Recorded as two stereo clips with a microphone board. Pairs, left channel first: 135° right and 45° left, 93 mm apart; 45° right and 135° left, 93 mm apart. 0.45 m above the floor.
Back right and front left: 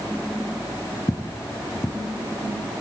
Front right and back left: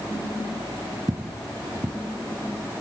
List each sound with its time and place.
1.1 s footsteps: 175° left, 1.5 m